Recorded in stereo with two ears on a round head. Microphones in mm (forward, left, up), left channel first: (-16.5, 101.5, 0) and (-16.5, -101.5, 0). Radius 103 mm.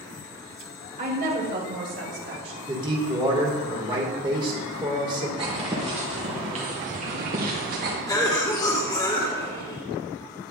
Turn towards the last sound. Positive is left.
turn(degrees=15)  # may be behind; listen again after turning